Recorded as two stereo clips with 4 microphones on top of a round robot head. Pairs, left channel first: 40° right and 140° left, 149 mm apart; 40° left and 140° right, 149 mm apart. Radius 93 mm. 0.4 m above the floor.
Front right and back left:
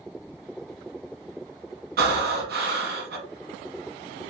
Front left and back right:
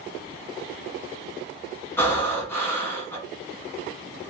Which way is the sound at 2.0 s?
115° left.